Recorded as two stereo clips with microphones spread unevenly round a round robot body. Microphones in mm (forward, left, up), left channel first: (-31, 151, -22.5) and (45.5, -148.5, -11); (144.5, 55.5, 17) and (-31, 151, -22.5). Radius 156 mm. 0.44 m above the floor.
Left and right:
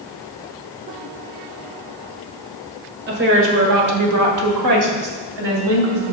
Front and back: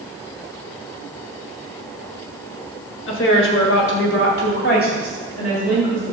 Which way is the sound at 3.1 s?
20° right.